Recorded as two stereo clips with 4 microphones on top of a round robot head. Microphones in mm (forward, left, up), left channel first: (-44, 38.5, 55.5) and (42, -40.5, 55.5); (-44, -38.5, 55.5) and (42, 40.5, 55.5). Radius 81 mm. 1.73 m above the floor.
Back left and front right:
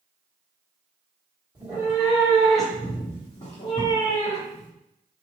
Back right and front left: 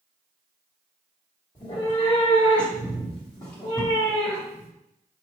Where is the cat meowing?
90° right, 1.2 m; by 4.7 s 140° left, 1.4 m.